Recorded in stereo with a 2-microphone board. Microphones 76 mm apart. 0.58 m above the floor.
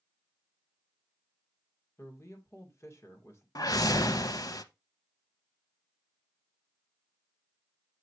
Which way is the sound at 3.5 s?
55° left (ahead or behind).